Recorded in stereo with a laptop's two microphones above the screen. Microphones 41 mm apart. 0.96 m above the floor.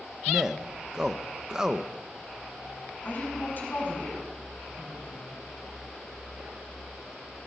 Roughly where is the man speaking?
Centre.